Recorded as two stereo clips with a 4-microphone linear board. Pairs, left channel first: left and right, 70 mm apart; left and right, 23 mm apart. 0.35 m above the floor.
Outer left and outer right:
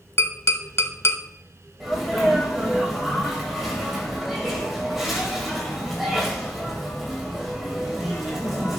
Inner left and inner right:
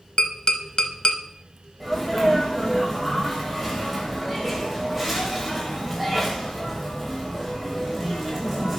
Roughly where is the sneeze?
Centre.